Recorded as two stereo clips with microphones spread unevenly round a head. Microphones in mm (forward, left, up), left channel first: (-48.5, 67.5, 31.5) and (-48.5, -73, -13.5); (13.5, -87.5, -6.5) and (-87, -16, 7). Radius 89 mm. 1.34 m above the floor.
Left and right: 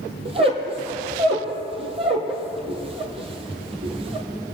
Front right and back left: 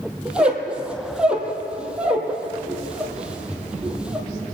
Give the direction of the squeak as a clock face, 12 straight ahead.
5 o'clock.